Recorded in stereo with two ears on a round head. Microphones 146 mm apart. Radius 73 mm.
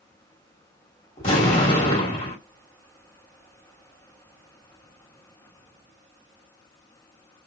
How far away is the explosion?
About 1.9 m.